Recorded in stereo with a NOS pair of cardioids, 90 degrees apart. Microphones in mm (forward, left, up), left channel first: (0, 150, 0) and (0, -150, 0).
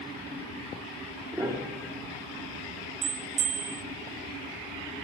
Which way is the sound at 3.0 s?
60° right.